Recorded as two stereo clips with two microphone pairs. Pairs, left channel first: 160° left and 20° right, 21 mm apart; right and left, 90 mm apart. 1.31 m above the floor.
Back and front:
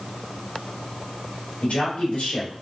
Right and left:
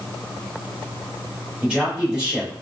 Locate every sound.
1.6 s a man speaking: 170° left, 1.8 m